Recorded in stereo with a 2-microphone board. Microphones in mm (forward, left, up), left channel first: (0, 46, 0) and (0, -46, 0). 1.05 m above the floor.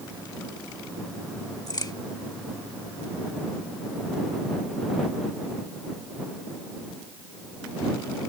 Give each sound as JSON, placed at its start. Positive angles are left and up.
{"t": 1.7, "sound": "a crack", "side_deg": 45}